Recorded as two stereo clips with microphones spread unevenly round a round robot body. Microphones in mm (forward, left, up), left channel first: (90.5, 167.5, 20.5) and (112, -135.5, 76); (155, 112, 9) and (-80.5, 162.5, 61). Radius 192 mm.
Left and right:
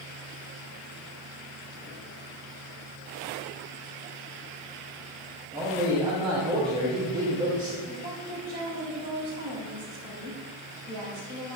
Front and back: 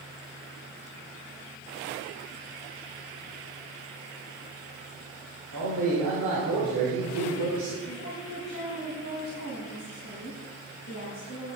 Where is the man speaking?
165° right, 2.5 m.